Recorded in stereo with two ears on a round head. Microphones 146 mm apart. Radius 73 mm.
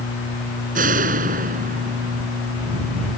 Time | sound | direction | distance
0.8 | a door slam | 55° right (ahead or behind) | ?